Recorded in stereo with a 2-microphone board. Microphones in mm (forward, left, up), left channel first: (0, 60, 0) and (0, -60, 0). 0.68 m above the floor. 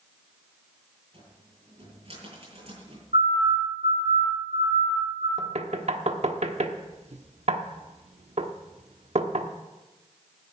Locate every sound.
1.1 s a cupboard door: 55° right (ahead or behind), 9.5 m
3.1 s a siren: 75° right (ahead or behind), 7 m; by 5.3 s 70° right (ahead or behind), 8.5 m
5.4 s knocking: 65° right (ahead or behind), 1.0 m